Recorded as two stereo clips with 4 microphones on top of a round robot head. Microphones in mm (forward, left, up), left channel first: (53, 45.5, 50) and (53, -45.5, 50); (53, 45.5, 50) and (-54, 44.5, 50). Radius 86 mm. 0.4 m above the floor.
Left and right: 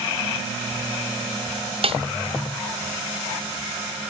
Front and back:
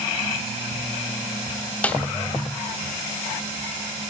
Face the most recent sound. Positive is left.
turn(degrees=-75)